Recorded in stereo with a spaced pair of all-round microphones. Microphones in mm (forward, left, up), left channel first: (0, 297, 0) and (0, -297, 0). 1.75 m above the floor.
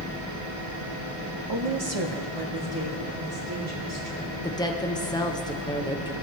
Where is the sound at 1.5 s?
40° right (ahead or behind), 0.6 m; by 4.3 s 35° right (ahead or behind), 4 m.